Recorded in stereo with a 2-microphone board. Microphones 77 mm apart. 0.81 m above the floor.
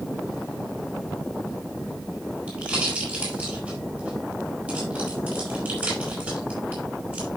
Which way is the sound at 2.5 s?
20° right (ahead or behind).